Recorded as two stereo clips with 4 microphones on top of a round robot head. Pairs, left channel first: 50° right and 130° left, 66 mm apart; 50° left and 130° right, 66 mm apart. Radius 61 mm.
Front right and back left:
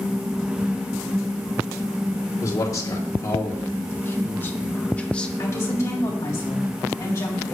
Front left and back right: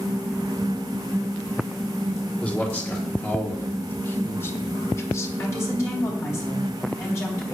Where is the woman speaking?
Straight ahead, 4 m.